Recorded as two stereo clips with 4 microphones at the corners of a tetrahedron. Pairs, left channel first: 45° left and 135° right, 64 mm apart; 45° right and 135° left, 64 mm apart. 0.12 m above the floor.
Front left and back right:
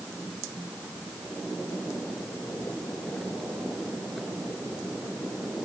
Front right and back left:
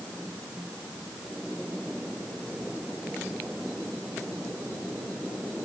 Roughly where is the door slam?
I don't hear a door slam.